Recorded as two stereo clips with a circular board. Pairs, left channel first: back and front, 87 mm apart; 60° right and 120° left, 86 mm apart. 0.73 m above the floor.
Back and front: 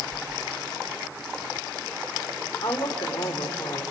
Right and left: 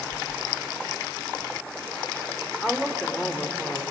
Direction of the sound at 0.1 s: 55° right.